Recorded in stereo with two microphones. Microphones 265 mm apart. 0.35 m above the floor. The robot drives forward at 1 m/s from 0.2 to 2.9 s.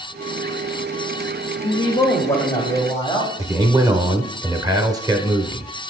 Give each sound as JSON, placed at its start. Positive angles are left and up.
{"t": 1.6, "sound": "a man speaking", "side_deg": 20, "distance_m": 0.9}
{"t": 3.4, "sound": "a man speaking", "side_deg": -15, "distance_m": 0.8}